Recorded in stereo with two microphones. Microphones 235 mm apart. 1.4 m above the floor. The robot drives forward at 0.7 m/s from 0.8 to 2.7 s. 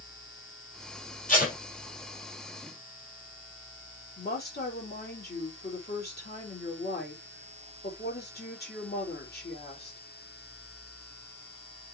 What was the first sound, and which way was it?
Tape being pulled, 35° left (ahead or behind).